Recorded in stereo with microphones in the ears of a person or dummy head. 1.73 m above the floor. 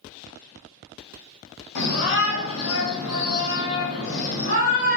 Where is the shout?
55° left (ahead or behind), 1.7 m; by 5.0 s 45° left (ahead or behind), 1.9 m.